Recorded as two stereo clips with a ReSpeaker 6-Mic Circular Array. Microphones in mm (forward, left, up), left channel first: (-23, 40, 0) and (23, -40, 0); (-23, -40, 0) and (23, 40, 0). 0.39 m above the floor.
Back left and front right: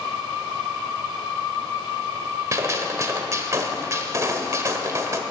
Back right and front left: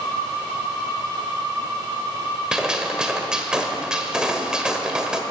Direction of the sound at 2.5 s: 20° right.